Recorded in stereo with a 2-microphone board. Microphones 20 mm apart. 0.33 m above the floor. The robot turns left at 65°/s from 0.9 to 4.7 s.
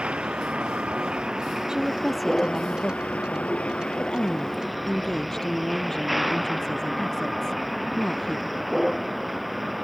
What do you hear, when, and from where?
0.0 s a vehicle: 120° right; by 9.8 s 10° right
1.7 s a woman speaking: 145° right; by 8.7 s 20° left